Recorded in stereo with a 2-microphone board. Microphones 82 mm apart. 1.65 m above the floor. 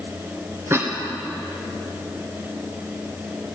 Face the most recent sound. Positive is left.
turn(degrees=-25)  # may be behind; listen again after turning